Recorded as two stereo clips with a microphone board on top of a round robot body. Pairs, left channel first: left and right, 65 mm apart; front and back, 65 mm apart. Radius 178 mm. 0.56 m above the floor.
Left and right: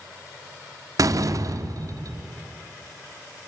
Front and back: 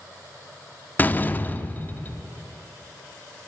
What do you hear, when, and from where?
1.0 s a door slam: 60° right, 1.0 m